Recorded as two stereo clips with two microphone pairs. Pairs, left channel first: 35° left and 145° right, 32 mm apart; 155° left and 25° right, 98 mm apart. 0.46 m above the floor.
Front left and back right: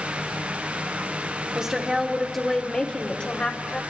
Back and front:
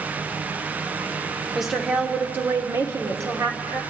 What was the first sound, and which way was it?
A woman speaking, 120° right.